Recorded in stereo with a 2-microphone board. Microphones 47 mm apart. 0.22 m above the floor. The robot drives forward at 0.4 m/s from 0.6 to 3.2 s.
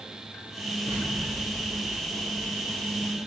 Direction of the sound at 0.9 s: 90° right.